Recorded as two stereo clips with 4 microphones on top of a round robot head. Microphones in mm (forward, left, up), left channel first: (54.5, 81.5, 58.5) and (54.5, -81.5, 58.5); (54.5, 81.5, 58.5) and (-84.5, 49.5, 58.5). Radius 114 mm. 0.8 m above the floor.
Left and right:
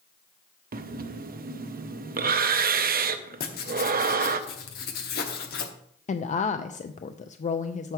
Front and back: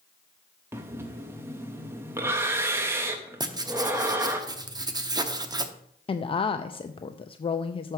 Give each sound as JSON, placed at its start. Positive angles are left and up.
{"t": 0.7, "sound": "breathing", "azimuth_deg": -95, "distance_m": 0.6}
{"t": 3.4, "sound": "writing", "azimuth_deg": 130, "distance_m": 0.8}
{"t": 6.1, "sound": "a woman speaking", "azimuth_deg": 60, "distance_m": 0.5}